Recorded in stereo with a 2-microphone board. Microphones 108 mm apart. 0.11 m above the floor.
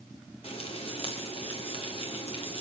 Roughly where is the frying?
Left.